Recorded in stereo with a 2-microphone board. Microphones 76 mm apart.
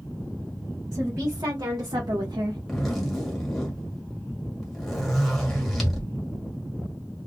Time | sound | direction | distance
0.9 | a woman speaking | 55° right (ahead or behind) | 1.6 m
2.7 | a zipper | centre (ahead or behind) | 1.5 m